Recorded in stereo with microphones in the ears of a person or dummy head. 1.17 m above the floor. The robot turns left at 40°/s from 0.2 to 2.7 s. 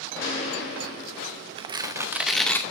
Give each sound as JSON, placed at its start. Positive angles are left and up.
{"t": 0.2, "sound": "a gunshot", "azimuth_deg": 135, "distance_m": 4.5}
{"t": 1.6, "sound": "tearing paper", "azimuth_deg": -145, "distance_m": 0.7}